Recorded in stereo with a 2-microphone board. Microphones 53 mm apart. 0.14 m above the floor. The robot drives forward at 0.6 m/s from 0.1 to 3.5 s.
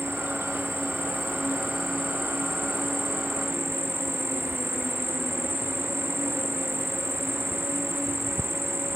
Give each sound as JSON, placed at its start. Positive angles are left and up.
{"t": 0.0, "sound": "an insect", "side_deg": -55}